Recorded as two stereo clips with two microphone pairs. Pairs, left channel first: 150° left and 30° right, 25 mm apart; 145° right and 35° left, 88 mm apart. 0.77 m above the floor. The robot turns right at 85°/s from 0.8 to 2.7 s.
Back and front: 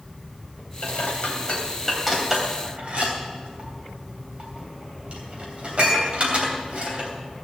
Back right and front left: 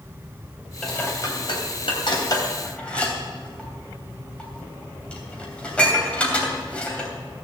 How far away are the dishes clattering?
About 3 m.